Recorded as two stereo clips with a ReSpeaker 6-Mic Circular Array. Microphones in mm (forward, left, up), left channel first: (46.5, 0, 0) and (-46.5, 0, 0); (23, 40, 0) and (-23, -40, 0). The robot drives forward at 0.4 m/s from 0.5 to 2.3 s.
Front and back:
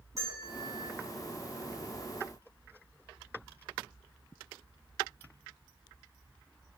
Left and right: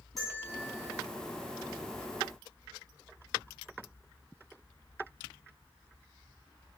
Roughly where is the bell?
Behind left.